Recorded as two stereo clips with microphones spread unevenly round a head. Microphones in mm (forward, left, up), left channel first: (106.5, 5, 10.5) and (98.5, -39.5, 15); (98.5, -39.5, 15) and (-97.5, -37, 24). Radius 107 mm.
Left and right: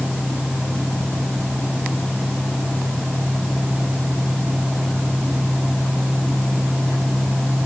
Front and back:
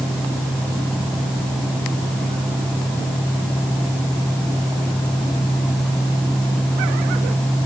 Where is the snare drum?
No snare drum in this recording.